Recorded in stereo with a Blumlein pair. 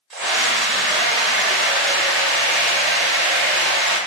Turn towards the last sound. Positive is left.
turn(degrees=-15)